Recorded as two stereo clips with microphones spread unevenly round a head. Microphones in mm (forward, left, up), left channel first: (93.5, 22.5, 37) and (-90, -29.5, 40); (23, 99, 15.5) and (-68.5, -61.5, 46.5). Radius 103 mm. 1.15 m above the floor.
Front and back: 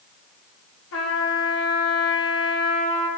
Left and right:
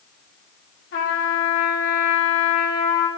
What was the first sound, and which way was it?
A trumpet, 35° left.